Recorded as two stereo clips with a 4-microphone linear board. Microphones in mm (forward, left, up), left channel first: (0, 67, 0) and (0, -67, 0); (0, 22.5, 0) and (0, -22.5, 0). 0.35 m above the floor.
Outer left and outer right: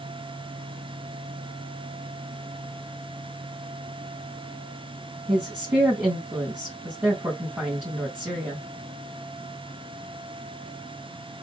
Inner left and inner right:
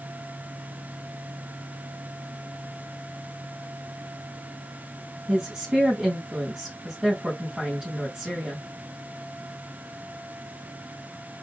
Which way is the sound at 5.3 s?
15° right (ahead or behind).